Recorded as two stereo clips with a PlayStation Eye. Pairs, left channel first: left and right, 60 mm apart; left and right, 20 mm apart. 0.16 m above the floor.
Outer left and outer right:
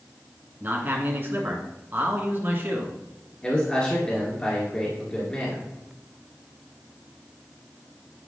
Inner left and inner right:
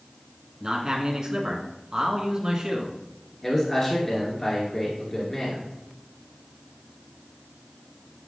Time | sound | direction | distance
0.6 | a man speaking | 35° right (ahead or behind) | 1.7 m
3.4 | a man speaking | 15° left (ahead or behind) | 2 m